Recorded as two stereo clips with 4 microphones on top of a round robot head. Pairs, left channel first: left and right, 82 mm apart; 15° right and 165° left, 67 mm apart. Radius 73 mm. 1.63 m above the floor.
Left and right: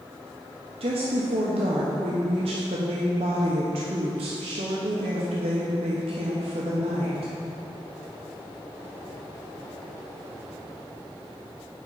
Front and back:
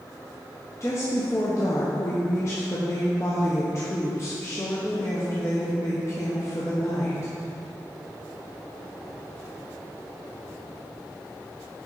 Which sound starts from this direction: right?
A woman speaking, at 0.8 s.